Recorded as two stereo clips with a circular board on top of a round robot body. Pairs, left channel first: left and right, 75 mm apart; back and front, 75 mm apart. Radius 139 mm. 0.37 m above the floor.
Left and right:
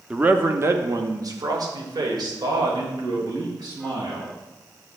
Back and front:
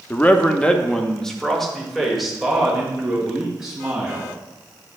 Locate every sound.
0.1 s a man speaking: 150° right, 0.8 m; by 4.4 s 85° right, 3 m